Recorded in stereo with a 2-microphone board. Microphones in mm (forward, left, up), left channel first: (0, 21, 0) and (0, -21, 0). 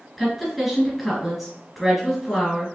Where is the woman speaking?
Centre (ahead or behind), 3 m.